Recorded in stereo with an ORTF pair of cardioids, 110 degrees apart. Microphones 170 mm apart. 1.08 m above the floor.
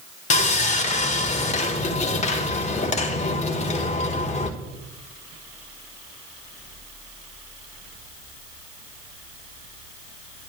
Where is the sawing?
45° left, 1.9 m.